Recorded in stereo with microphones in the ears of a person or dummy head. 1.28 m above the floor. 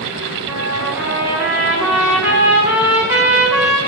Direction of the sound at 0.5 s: 15° right (ahead or behind).